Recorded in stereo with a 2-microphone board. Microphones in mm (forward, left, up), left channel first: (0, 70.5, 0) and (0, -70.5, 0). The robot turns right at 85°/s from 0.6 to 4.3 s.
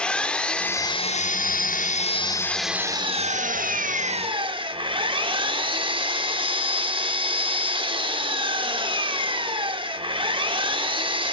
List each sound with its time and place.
0.0 s an engine running: 10° left, 0.9 m; by 11.3 s 40° right, 0.9 m